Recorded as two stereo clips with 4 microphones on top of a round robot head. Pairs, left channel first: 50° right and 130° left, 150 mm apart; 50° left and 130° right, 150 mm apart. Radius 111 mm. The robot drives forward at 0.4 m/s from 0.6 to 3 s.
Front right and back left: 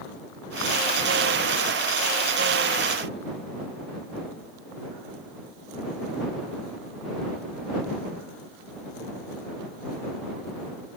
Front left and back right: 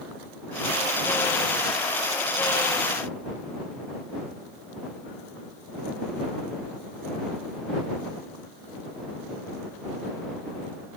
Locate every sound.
Only background noise.